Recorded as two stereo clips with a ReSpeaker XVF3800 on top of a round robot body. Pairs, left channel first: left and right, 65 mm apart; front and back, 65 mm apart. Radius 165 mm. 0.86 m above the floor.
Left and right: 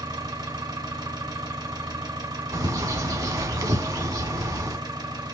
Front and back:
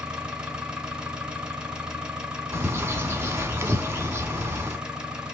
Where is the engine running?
105° right, 1.3 m.